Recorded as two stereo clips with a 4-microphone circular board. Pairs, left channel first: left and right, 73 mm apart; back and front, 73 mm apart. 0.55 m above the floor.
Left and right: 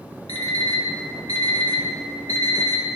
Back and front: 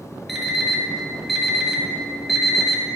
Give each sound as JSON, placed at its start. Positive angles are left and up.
{"t": 0.3, "sound": "an alarm clock", "azimuth_deg": -90, "distance_m": 1.3}